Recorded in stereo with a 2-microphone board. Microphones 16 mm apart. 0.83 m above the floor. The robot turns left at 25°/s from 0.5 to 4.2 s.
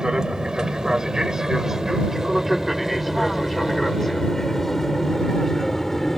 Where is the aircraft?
55° right (ahead or behind); by 6.2 s 15° left (ahead or behind).